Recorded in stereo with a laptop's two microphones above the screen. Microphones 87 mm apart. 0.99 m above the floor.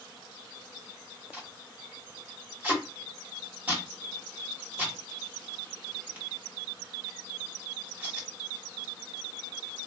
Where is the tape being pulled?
15° right (ahead or behind), 1.5 m.